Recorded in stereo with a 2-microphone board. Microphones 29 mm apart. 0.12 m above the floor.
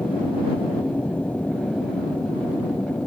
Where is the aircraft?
60° left (ahead or behind).